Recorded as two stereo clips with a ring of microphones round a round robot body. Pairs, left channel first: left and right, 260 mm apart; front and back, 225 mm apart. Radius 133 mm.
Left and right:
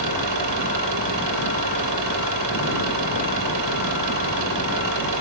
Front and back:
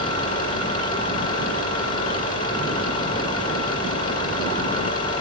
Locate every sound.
0.0 s an engine running: 65° right, 6 m